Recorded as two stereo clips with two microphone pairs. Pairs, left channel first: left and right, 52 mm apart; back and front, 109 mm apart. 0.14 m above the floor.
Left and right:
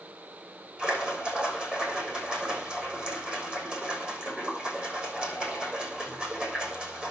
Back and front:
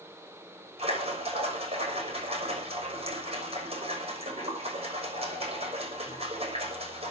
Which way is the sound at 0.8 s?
25° right.